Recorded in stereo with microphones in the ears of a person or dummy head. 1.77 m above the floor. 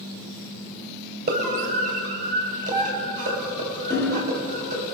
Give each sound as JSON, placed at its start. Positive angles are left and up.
{"t": 1.3, "sound": "a scream", "side_deg": -50, "distance_m": 8.5}
{"t": 3.9, "sound": "hammering", "side_deg": 15, "distance_m": 5.5}